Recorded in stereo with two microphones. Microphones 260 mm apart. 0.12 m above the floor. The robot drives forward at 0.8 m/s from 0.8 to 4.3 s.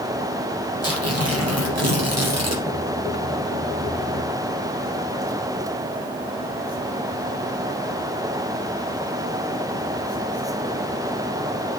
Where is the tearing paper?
55° right (ahead or behind), 4 m; by 2.6 s 65° right (ahead or behind), 3.5 m.